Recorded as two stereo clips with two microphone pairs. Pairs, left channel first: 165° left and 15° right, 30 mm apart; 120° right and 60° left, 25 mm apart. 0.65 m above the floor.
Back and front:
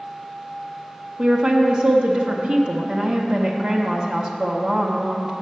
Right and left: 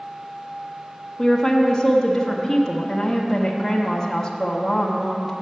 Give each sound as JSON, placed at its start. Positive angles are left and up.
{"t": 1.2, "sound": "a woman speaking", "azimuth_deg": -50, "distance_m": 0.8}